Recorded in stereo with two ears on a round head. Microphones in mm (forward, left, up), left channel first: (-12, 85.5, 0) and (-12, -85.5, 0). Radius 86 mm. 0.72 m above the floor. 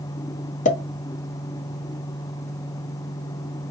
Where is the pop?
40° left (ahead or behind), 0.7 m.